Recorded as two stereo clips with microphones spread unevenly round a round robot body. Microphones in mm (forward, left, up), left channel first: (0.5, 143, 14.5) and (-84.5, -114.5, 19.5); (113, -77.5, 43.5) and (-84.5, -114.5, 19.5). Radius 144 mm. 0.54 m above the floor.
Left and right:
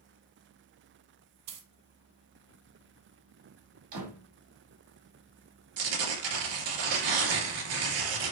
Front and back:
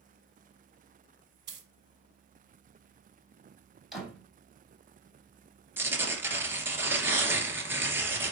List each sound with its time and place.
1.5 s a dropped coin: 135° right, 1.6 m
3.9 s a door slam: 80° right, 3 m
5.8 s tearing paper: 90° right, 2.5 m